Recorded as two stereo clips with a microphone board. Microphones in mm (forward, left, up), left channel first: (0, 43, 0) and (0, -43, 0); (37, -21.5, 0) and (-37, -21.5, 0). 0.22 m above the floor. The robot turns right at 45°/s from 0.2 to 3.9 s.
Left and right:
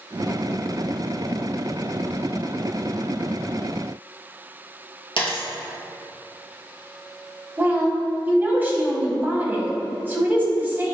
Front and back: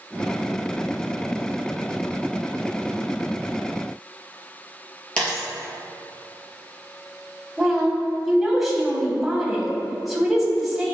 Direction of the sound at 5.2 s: 75° left.